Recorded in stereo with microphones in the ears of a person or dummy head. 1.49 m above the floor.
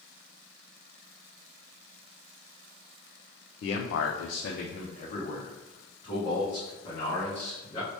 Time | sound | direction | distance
3.6 | a man speaking | 55° left (ahead or behind) | 0.5 m